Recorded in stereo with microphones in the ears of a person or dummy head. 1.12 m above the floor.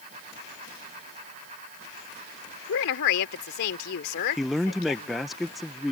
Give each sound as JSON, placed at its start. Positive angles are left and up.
{"t": 2.7, "sound": "a woman speaking", "side_deg": 70}
{"t": 4.4, "sound": "a man speaking", "side_deg": 0}